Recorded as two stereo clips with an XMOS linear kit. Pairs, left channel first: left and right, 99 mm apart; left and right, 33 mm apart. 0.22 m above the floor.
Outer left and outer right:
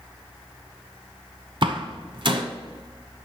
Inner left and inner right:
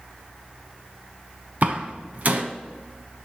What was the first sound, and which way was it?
A door slam, 55° right (ahead or behind).